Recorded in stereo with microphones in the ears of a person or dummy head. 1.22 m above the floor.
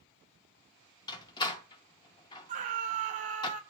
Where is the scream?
40° right (ahead or behind), 1.2 m.